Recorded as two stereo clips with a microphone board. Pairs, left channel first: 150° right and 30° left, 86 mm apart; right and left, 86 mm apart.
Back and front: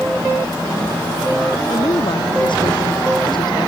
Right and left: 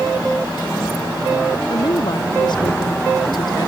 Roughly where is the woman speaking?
Behind right.